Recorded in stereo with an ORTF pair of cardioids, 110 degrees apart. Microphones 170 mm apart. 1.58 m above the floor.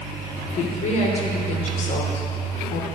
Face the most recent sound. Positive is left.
turn(degrees=45)